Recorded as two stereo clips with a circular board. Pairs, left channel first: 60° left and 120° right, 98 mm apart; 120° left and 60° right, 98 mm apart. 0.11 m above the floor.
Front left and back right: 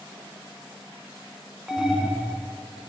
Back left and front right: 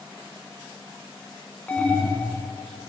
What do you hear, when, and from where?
1.7 s an alarm: 165° left, 1.1 m